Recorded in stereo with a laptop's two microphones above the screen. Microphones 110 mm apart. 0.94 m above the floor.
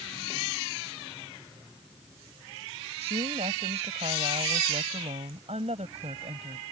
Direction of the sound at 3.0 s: 75° right (ahead or behind).